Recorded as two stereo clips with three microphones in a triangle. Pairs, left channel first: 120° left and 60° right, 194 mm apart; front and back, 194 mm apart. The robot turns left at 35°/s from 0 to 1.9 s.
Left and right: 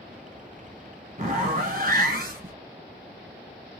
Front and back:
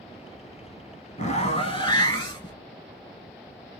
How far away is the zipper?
About 1.1 m.